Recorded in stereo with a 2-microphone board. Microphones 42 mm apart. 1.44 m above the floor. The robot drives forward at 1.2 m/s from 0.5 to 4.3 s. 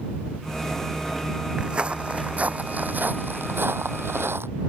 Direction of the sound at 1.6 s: 20° right (ahead or behind).